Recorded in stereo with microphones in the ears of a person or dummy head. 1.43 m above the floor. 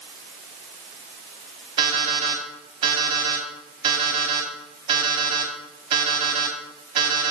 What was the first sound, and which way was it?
An alarm clock, 25° right (ahead or behind).